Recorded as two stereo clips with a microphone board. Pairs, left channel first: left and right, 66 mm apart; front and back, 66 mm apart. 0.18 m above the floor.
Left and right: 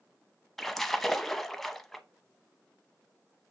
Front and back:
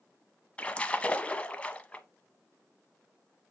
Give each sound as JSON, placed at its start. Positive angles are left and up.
{"t": 0.6, "sound": "a splash", "azimuth_deg": 10, "distance_m": 0.6}